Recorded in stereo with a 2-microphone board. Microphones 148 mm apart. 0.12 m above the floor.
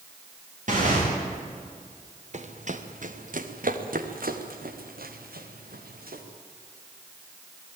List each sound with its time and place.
0.7 s tearing paper: 60° right (ahead or behind), 9.5 m
2.3 s running footsteps: 50° right (ahead or behind), 2.5 m; by 6.2 s 90° right, 4 m